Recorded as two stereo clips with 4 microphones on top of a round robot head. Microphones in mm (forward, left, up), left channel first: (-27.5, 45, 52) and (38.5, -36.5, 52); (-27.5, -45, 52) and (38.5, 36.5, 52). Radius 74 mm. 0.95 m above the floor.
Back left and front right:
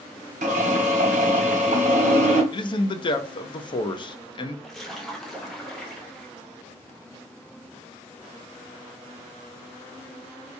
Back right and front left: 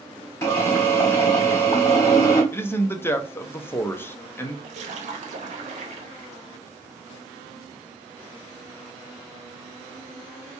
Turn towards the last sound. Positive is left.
turn(degrees=40)